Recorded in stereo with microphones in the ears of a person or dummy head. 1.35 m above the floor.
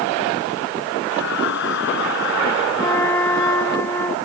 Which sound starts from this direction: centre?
A flute, at 2.8 s.